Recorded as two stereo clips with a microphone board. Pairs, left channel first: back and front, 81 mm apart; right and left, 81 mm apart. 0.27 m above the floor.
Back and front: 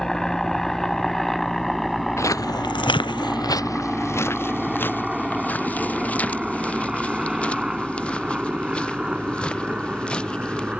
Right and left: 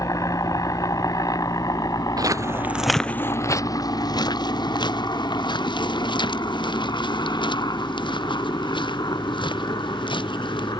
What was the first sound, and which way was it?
A helicopter, 95° right.